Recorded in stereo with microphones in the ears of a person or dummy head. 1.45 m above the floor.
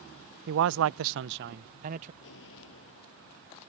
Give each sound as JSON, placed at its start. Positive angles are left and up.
{"t": 0.5, "sound": "a man speaking", "side_deg": -60}
{"t": 2.2, "sound": "an explosion", "side_deg": 70}